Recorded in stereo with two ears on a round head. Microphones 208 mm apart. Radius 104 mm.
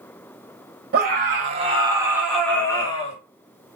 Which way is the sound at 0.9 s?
40° right (ahead or behind).